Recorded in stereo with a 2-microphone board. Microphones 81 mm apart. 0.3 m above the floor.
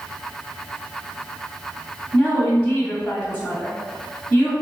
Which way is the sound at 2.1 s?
15° left (ahead or behind).